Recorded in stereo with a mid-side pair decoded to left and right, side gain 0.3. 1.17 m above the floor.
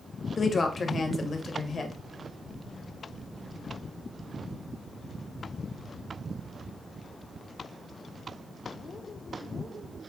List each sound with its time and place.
0.4 s a woman speaking: 55° left, 0.8 m